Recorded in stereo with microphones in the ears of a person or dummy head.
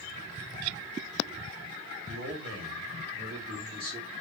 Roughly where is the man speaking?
Right.